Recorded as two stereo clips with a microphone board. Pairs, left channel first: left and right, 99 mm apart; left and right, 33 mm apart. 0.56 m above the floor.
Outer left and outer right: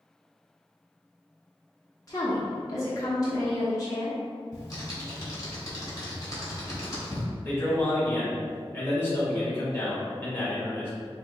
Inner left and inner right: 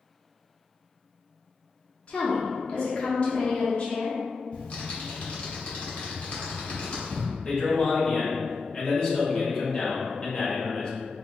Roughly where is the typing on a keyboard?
Left.